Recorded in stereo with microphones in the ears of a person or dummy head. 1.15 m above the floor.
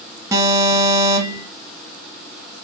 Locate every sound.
0.3 s an alarm: 15° right (ahead or behind), 1.2 m